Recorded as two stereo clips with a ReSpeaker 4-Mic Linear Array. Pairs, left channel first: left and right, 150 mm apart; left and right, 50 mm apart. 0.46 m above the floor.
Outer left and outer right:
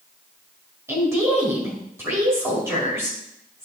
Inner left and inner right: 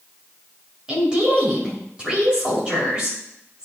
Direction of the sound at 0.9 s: 20° right (ahead or behind).